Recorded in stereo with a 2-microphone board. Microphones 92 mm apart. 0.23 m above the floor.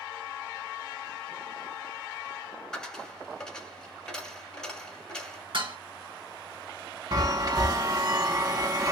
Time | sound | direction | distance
2.7 | a dropped coin | 10° left (ahead or behind) | 1.0 m
5.5 | dishes clattering | 60° right (ahead or behind) | 2.0 m
7.1 | a chime | 45° right (ahead or behind) | 0.6 m